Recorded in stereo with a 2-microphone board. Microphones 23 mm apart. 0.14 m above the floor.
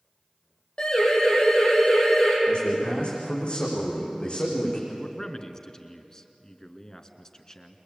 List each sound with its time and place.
0.8 s a siren: 40° left (ahead or behind), 7.5 m; by 2.4 s 35° left (ahead or behind), 7 m
2.5 s a man speaking: 50° left (ahead or behind), 8.5 m
4.9 s a man speaking: 25° left (ahead or behind), 1.8 m